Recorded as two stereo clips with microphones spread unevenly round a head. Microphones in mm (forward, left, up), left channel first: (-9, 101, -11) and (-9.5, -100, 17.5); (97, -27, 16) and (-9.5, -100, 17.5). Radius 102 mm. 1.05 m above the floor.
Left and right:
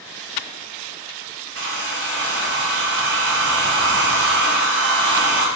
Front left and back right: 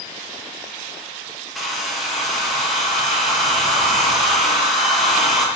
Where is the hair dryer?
55° right, 0.8 m.